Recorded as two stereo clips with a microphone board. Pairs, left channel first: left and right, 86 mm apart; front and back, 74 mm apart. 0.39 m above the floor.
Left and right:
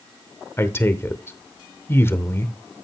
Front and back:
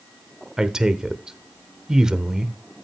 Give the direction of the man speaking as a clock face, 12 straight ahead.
8 o'clock.